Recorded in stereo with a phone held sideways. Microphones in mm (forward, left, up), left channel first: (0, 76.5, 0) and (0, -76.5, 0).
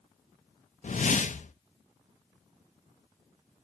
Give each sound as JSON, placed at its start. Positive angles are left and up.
{"t": 0.8, "sound": "a whoosh", "side_deg": 55, "distance_m": 0.6}